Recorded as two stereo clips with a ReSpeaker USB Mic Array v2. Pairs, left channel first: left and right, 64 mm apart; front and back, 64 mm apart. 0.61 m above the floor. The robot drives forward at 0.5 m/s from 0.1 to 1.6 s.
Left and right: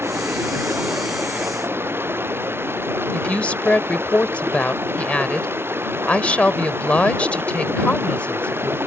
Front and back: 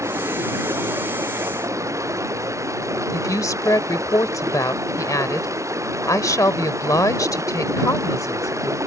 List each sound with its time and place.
0.0 s running water: 140° right
3.1 s a woman speaking: 20° left